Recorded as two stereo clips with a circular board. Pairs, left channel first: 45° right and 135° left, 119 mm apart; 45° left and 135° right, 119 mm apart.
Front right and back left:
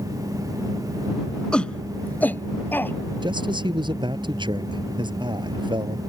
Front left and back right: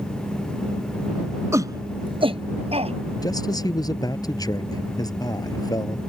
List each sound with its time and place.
1.5 s a shout: 120° right; by 3.0 s 115° right
3.2 s a man speaking: 95° left